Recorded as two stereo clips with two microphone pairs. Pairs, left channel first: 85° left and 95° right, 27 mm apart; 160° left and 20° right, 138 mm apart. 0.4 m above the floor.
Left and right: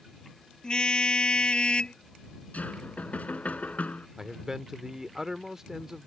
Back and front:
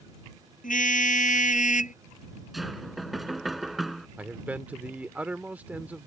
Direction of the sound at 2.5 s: 70° left.